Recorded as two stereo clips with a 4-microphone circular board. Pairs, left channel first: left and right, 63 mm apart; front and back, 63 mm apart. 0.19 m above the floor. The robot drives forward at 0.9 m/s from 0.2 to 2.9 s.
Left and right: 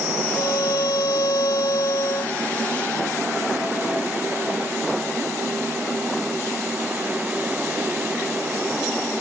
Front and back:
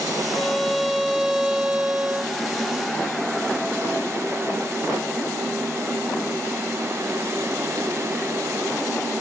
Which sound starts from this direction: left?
A violin, at 0.3 s.